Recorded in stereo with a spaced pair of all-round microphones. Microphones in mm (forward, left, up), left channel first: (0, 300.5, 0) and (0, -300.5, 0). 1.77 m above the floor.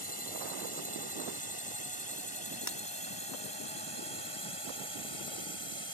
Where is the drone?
35° right (ahead or behind); by 5.9 s 50° right (ahead or behind).